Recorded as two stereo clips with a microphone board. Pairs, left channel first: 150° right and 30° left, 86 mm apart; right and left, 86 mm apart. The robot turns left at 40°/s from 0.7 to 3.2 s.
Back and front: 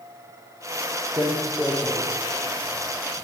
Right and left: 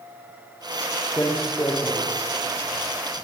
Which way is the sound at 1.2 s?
10° right.